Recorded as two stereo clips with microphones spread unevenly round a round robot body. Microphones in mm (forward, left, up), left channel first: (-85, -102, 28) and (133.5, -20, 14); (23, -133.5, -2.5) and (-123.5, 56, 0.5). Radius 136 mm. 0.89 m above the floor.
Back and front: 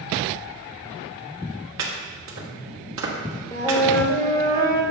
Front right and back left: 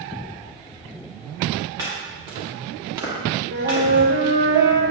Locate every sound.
1.8 s chopping: 50° left, 1.4 m
3.5 s a flute: 125° left, 1.1 m